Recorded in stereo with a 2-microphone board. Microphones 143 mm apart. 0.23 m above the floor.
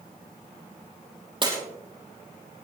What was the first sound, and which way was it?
Breaking glass, 35° right (ahead or behind).